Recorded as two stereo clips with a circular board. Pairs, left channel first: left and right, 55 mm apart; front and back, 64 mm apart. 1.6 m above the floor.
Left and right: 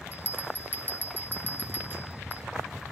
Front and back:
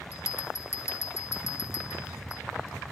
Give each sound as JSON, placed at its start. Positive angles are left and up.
{"t": 0.1, "sound": "a bell", "azimuth_deg": 40, "distance_m": 1.2}